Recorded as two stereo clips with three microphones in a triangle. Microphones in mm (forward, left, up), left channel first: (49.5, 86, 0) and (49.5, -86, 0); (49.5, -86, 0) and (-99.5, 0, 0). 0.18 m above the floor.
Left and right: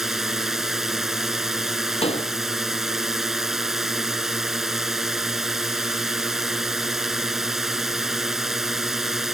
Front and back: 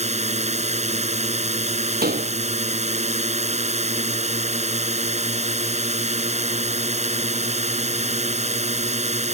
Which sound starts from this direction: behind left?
A door slam, at 2.0 s.